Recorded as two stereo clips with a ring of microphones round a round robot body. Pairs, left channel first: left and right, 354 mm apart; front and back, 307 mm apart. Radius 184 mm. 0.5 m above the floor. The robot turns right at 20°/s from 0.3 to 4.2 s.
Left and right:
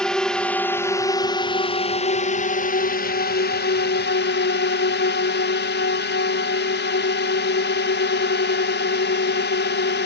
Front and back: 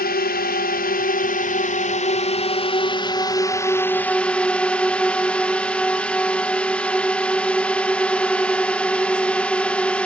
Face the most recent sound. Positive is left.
turn(degrees=80)